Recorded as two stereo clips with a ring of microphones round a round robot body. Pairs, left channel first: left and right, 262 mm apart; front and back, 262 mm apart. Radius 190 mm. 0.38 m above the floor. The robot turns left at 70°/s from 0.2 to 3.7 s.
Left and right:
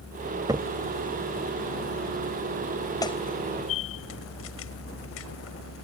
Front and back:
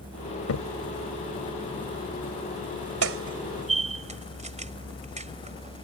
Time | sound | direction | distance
0.5 | a crack | 15° right | ?